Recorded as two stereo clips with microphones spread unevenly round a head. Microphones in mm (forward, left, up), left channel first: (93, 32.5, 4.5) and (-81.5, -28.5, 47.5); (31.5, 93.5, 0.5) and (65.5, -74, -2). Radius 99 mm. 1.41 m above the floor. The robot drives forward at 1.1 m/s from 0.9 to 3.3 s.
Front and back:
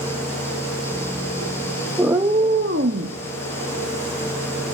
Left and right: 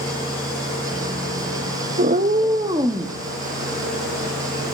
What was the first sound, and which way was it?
A cat meowing, 85° right.